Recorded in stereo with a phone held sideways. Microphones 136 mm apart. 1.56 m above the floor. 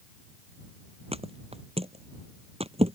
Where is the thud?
50° right (ahead or behind).